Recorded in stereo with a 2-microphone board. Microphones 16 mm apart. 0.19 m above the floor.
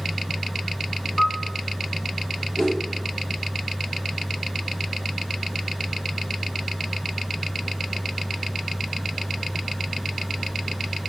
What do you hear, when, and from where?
1.2 s a piano: 25° left (ahead or behind), 0.8 m
2.6 s a whoosh: 40° left (ahead or behind), 4 m